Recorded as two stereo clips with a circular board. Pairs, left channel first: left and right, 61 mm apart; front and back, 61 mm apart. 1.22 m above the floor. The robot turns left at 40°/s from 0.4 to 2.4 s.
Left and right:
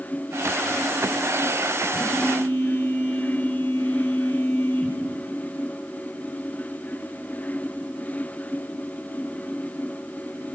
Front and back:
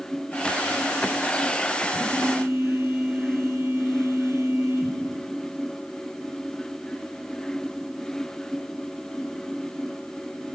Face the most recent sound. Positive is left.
turn(degrees=140)